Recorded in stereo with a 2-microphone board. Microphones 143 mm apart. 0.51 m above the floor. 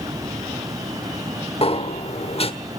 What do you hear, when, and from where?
1.6 s a sliding door: 45° left (ahead or behind), 1.2 m